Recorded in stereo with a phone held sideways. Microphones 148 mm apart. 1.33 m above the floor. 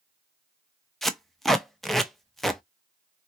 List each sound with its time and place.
1.0 s tape being pulled: centre (ahead or behind), 0.5 m